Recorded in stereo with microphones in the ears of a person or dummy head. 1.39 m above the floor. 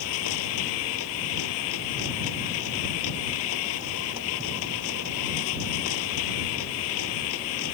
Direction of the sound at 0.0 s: 80° left.